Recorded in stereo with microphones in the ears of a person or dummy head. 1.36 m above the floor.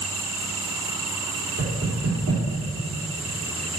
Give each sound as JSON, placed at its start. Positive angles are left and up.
{"t": 1.6, "sound": "knocking", "side_deg": -85, "distance_m": 4.0}